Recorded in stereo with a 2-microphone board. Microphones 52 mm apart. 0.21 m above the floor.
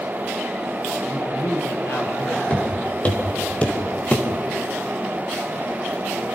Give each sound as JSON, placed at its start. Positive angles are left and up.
{"t": 1.1, "sound": "a man speaking", "side_deg": 70, "distance_m": 7.0}
{"t": 2.5, "sound": "footsteps", "side_deg": 25, "distance_m": 5.0}